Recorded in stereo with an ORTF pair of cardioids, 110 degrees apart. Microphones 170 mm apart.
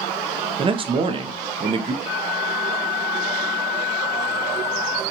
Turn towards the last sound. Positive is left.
turn(degrees=20)